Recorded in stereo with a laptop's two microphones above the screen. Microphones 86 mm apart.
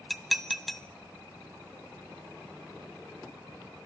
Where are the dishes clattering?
Centre (ahead or behind), 0.6 m.